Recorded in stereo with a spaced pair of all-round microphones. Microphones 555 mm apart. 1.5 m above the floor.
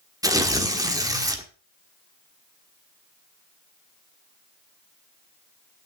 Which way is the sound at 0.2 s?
5° right (ahead or behind).